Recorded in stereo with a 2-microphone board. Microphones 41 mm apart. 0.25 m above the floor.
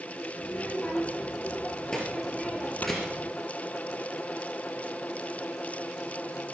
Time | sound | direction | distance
0.4 | a child speaking | 25° left (ahead or behind) | 4.5 m
2.8 | snoring | 40° left (ahead or behind) | 2 m